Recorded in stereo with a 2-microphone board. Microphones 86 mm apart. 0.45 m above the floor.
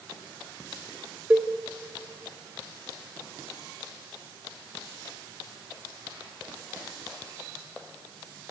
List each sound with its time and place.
1.3 s a cowbell: 15° right (ahead or behind), 0.9 m